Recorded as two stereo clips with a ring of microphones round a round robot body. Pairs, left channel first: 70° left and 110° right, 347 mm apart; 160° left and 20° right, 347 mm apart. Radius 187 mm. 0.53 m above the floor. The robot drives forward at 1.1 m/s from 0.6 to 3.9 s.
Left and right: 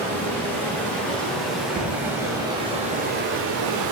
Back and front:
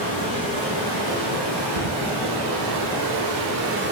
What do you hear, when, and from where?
0.0 s running water: 15° right, 4 m; by 3.9 s 85° right, 1.3 m
1.8 s a thud: 25° right, 2.5 m; by 2.0 s 30° right, 2.5 m